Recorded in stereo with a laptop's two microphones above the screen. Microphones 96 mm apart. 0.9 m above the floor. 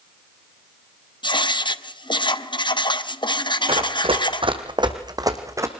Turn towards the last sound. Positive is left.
turn(degrees=-30)  # may be behind; listen again after turning